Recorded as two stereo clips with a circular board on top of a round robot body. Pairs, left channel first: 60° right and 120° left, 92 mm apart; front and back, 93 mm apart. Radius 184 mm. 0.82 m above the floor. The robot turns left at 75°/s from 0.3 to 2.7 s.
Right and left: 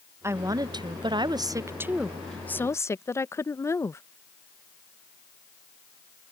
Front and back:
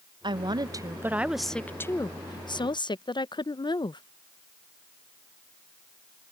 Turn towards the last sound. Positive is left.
turn(degrees=-5)